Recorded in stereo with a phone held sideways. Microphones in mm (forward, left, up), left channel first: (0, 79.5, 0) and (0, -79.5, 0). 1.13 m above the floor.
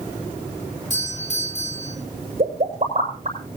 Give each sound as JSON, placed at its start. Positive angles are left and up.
{"t": 0.9, "sound": "a doorbell", "side_deg": 50, "distance_m": 4.0}
{"t": 2.4, "sound": "a pop", "side_deg": -50, "distance_m": 7.5}